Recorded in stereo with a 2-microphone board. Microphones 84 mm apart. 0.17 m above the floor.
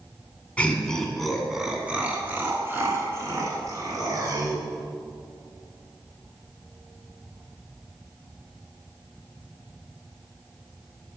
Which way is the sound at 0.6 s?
20° left (ahead or behind).